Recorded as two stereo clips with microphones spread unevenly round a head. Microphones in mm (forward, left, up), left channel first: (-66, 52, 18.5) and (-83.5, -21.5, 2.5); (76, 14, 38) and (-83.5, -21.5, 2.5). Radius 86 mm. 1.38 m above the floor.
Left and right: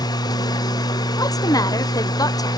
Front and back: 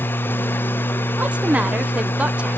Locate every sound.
0.0 s a machine running: 85° left, 0.8 m
1.2 s a woman speaking: 115° left, 1.0 m